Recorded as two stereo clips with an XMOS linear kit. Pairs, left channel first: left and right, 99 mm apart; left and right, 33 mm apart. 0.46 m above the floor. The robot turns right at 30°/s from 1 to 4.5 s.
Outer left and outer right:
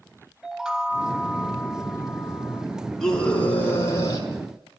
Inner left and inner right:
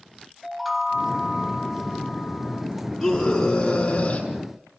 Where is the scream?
5° left, 7.5 m; by 4.3 s 45° left, 7.5 m.